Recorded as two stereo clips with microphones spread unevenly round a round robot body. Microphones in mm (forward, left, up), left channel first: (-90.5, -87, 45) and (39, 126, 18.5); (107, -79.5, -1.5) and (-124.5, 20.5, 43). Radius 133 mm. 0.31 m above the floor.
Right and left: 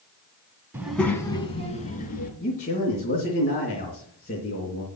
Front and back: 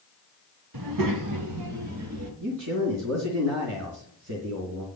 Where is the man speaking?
Straight behind, 3.5 m.